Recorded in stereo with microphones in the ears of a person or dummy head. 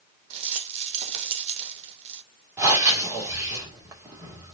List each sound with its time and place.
0.3 s a rattle: 35° right (ahead or behind), 0.8 m
2.6 s breathing: 15° right (ahead or behind), 2.5 m